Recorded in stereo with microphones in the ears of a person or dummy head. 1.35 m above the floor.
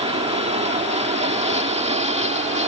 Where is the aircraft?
25° right (ahead or behind).